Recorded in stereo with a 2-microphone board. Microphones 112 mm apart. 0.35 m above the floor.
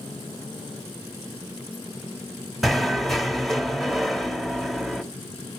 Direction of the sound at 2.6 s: Centre (ahead or behind).